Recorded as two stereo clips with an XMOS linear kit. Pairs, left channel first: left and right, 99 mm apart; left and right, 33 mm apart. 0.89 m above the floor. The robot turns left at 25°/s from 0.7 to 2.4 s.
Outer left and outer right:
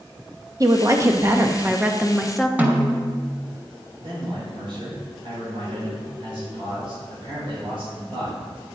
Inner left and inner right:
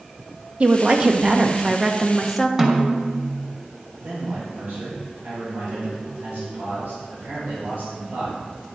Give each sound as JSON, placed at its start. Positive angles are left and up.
{"t": 0.6, "sound": "a woman speaking", "azimuth_deg": -140, "distance_m": 0.9}
{"t": 2.6, "sound": "a snare drum", "side_deg": -15, "distance_m": 1.2}
{"t": 4.0, "sound": "a man speaking", "side_deg": -60, "distance_m": 4.0}